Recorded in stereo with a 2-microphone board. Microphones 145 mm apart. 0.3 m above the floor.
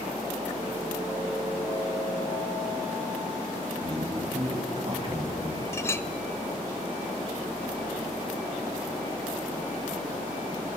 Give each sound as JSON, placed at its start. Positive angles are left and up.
{"t": 3.8, "sound": "a man speaking", "side_deg": -45, "distance_m": 2.0}
{"t": 5.7, "sound": "a clink", "side_deg": 20, "distance_m": 0.5}